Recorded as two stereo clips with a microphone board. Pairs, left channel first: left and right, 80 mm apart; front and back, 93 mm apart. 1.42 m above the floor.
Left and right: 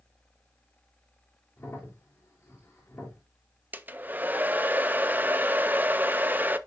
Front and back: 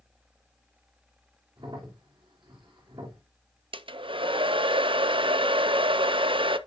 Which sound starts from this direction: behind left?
A crack, at 1.6 s.